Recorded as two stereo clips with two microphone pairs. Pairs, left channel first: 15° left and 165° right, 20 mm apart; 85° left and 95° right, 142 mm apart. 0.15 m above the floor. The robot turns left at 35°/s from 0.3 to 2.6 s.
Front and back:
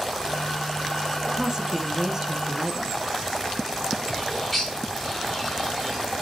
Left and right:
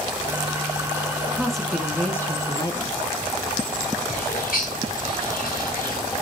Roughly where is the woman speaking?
Behind.